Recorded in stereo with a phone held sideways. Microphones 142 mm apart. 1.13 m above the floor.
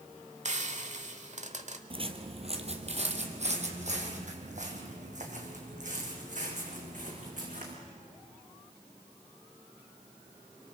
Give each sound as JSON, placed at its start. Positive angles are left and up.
{"t": 0.5, "sound": "frying", "side_deg": -55, "distance_m": 1.3}
{"t": 1.9, "sound": "footsteps", "side_deg": -40, "distance_m": 1.6}